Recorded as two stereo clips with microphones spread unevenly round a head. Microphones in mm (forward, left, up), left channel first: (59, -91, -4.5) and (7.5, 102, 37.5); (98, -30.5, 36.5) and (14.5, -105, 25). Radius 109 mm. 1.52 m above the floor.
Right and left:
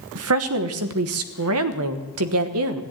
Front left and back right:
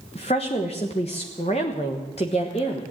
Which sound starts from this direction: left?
A woman speaking, at 0.1 s.